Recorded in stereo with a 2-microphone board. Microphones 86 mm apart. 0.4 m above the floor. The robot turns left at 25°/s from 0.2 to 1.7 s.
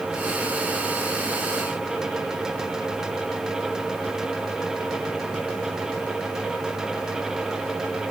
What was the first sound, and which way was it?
Only background noise.